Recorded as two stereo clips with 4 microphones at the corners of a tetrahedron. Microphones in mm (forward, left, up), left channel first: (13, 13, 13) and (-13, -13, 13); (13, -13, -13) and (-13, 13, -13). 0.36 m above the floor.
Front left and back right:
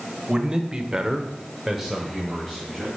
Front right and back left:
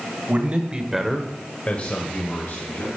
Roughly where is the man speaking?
Behind.